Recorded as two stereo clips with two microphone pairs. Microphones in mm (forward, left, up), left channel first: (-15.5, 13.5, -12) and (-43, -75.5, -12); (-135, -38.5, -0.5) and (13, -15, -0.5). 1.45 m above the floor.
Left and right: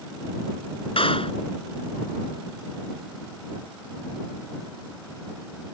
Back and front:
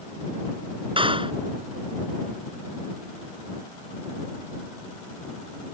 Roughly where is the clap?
Ahead left.